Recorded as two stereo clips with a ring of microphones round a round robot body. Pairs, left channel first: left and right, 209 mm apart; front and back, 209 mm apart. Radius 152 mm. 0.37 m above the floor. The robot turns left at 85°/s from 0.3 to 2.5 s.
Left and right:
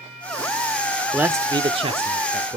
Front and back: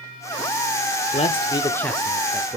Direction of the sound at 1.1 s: 10° right.